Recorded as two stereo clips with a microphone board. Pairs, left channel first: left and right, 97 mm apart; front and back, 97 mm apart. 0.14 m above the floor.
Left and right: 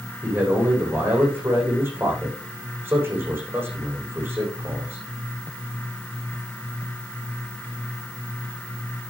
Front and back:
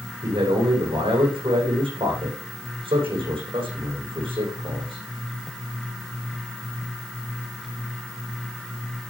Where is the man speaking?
155° right, 8 m.